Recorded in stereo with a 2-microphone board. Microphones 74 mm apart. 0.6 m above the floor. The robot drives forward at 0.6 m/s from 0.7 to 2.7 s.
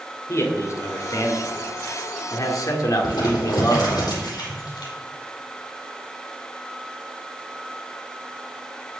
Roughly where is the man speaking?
Left.